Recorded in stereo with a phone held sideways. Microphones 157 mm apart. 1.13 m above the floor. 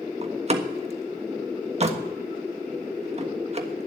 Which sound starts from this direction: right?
A door slam, at 0.2 s.